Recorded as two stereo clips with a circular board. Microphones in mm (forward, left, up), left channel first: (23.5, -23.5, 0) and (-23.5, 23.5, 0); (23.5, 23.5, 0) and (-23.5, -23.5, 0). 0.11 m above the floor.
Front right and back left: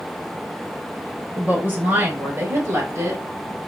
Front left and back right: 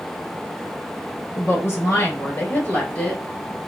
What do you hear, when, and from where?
1.4 s a woman speaking: 80° left, 2.0 m; by 3.7 s 125° left, 2 m